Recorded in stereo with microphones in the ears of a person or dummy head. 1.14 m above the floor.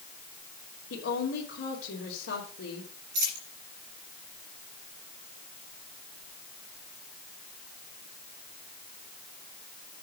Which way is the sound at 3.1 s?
65° right (ahead or behind).